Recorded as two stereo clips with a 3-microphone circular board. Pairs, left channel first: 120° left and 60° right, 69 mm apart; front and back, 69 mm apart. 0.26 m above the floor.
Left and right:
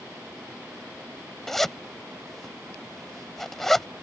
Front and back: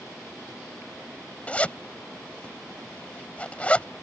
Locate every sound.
1.5 s a zipper: 40° left